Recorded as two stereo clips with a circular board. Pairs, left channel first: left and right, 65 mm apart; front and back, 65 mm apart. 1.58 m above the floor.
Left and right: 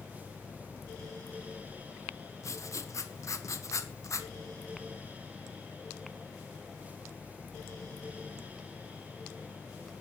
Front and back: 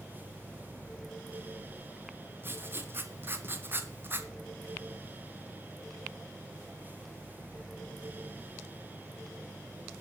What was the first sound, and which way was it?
Writing, 125° left.